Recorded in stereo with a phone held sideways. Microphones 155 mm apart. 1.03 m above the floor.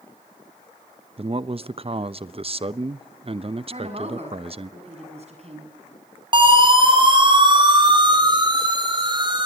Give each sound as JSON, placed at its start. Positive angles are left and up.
{"t": 1.2, "sound": "a man speaking", "side_deg": -40, "distance_m": 0.8}
{"t": 3.7, "sound": "a woman speaking", "side_deg": -45, "distance_m": 8.0}
{"t": 6.3, "sound": "a siren", "side_deg": -35, "distance_m": 7.0}